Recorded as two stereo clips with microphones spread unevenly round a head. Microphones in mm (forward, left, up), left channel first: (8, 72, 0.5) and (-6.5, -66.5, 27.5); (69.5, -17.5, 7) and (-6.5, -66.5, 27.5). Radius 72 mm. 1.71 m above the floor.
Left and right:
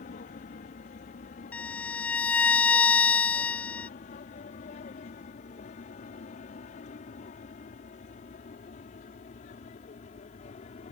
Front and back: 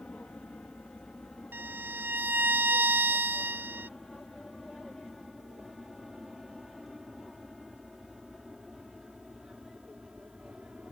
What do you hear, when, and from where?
0.0 s an aircraft: 115° left; by 10.9 s 125° left
1.5 s a violin: 175° left